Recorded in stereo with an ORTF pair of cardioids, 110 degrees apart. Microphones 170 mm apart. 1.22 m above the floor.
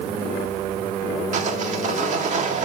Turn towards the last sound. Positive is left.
turn(degrees=-45)